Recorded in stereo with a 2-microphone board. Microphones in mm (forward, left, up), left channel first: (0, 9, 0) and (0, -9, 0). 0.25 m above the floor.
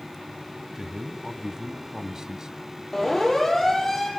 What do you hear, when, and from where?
0.8 s a man speaking: 35° right (ahead or behind), 1.6 m
2.9 s a siren: 20° left (ahead or behind), 7 m